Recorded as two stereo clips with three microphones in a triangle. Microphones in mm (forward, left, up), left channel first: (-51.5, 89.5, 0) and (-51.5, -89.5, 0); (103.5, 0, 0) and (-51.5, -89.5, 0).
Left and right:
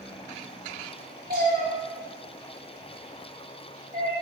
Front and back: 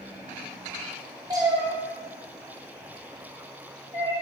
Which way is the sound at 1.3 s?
85° right.